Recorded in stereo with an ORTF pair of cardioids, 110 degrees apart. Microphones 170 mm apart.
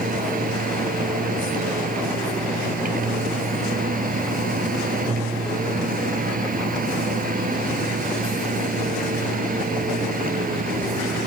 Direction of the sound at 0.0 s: 55° right.